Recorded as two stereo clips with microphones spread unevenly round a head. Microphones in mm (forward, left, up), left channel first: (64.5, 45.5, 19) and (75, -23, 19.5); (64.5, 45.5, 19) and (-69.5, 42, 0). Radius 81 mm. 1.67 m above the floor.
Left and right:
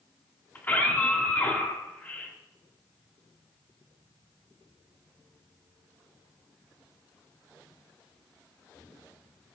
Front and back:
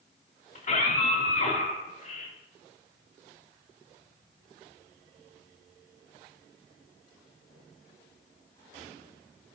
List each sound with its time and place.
0.6 s a scream: 35° left, 5.5 m